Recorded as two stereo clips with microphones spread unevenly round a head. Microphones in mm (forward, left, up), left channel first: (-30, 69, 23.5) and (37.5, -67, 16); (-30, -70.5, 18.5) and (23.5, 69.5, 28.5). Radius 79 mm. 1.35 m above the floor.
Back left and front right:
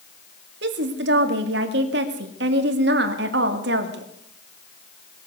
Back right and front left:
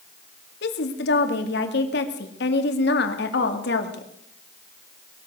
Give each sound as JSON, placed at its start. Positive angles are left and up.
{"t": 0.6, "sound": "a woman speaking", "azimuth_deg": -85, "distance_m": 2.0}